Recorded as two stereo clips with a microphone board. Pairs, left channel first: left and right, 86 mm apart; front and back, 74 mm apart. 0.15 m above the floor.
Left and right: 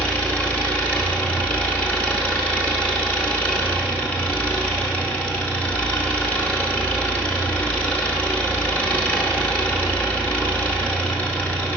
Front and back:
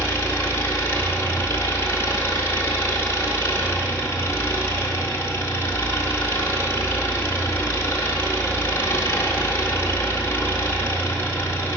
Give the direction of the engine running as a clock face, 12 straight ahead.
11 o'clock.